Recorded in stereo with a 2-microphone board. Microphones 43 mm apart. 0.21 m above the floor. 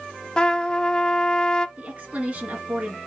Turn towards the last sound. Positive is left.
turn(degrees=-30)  # may be behind; listen again after turning